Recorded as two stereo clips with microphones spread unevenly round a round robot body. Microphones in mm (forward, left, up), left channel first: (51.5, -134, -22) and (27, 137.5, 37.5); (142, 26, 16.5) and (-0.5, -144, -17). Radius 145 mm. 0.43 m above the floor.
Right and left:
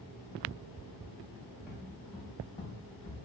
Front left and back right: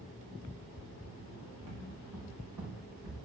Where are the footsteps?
Straight behind, 3 m; by 3.2 s 150° right, 4.5 m.